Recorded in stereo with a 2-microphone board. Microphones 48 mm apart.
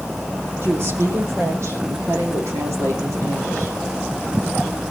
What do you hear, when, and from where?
0.6 s a woman speaking: 55° right (ahead or behind), 8 m; by 3.8 s 70° right (ahead or behind), 8 m